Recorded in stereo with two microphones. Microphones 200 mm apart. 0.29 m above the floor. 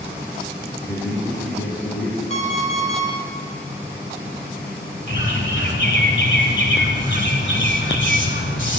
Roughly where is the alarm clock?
Left.